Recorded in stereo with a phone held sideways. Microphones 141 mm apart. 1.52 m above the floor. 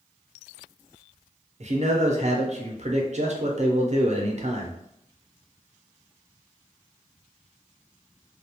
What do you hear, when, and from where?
1.6 s a man speaking: 55° right (ahead or behind), 0.6 m